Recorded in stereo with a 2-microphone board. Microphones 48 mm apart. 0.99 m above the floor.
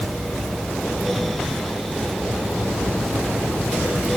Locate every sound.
Only background noise.